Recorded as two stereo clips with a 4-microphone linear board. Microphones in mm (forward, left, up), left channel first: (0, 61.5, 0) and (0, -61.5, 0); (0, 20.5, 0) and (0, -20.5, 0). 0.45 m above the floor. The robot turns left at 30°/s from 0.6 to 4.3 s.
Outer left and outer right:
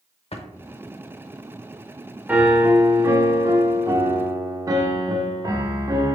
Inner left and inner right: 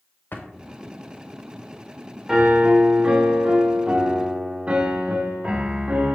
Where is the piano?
10° right (ahead or behind), 0.6 m; by 6.2 s 30° right (ahead or behind), 0.6 m.